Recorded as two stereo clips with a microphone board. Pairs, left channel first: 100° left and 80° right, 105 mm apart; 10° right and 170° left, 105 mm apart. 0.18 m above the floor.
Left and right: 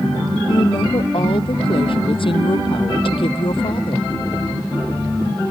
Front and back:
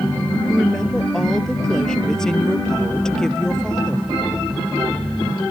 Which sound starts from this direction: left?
A woman speaking, at 0.5 s.